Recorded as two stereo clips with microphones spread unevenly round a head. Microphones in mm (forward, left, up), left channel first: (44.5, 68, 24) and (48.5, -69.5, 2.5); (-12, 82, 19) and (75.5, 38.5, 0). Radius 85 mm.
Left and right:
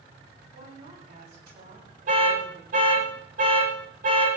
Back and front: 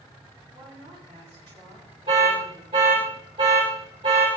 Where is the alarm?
80° right, 9 m.